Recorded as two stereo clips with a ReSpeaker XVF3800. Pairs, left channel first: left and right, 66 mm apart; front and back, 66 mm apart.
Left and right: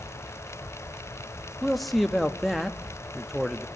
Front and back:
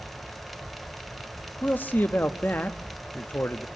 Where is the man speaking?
Straight ahead, 0.8 m.